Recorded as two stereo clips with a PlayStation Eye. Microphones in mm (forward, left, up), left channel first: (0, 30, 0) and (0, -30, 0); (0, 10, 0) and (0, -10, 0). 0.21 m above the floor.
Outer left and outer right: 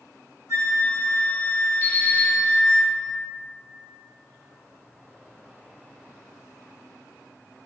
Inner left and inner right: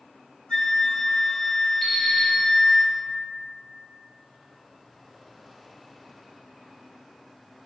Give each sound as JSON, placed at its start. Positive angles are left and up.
{"t": 0.5, "sound": "a flute", "side_deg": 75, "distance_m": 1.5}
{"t": 1.8, "sound": "an alarm clock", "side_deg": 55, "distance_m": 1.4}